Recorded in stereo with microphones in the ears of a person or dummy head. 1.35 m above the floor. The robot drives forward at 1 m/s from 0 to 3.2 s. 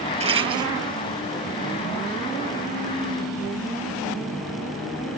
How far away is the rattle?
About 0.7 m.